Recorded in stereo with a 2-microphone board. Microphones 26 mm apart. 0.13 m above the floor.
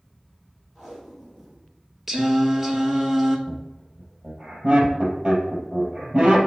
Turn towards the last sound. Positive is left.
turn(degrees=-25)  # may be behind; listen again after turning